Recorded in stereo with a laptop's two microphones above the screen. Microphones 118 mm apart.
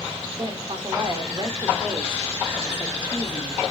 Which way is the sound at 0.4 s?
40° right (ahead or behind).